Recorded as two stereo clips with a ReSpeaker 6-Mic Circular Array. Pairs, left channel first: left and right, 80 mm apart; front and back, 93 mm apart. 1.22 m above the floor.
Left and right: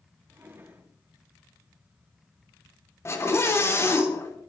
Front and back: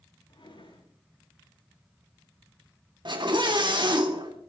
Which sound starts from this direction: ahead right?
A drawer, at 0.3 s.